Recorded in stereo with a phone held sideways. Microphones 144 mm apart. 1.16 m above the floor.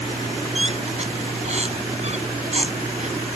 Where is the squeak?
50° right (ahead or behind).